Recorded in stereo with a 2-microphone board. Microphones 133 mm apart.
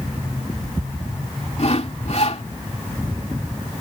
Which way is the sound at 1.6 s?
55° left (ahead or behind).